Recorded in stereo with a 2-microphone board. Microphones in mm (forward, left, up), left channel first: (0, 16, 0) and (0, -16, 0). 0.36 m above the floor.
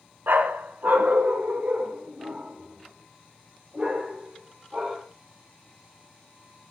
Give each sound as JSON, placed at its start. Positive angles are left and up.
{"t": 0.3, "sound": "a dog barking", "side_deg": -75, "distance_m": 1.5}